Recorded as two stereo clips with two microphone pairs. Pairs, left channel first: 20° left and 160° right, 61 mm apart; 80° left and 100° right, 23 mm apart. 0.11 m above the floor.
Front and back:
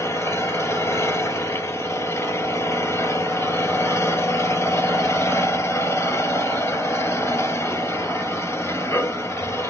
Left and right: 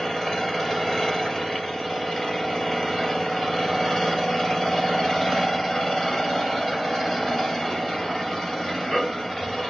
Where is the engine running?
5° left, 2 m.